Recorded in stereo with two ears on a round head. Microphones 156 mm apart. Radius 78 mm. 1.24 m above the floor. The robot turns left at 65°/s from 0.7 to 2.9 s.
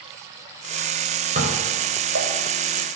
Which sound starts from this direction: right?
Dishes clattering, at 1.4 s.